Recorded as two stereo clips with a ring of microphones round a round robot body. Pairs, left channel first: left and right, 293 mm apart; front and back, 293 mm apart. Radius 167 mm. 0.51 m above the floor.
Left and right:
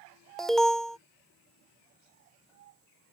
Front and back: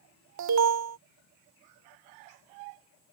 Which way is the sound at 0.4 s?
Straight behind.